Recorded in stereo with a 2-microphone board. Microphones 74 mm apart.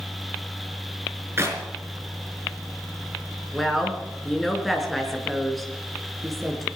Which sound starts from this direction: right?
A clap, at 1.4 s.